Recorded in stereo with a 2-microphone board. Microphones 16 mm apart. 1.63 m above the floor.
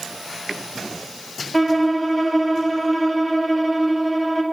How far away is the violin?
About 1.5 m.